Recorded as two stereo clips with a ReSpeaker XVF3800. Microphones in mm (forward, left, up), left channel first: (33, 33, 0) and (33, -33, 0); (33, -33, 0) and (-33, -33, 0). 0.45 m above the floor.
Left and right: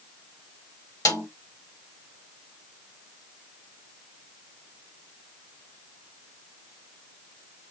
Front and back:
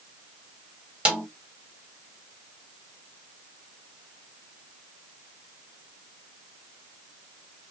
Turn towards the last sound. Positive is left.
turn(degrees=110)